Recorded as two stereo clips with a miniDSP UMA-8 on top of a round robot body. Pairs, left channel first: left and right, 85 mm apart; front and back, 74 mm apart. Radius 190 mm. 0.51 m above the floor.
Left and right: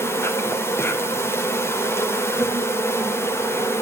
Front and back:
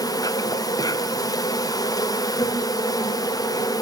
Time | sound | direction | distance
0.0 | an insect | 30° left | 4 m